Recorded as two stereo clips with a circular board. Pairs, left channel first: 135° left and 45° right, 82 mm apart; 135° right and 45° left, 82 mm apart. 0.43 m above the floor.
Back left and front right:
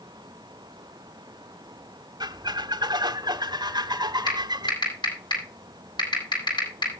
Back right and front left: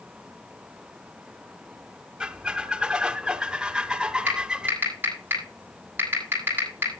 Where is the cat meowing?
I don't hear a cat meowing.